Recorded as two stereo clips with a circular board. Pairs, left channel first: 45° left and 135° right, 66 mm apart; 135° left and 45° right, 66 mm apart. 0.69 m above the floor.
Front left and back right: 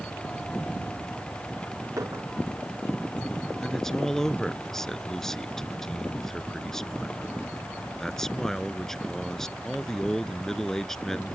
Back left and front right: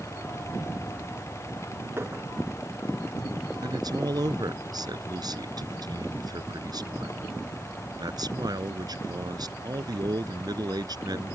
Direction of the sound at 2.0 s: 95° right.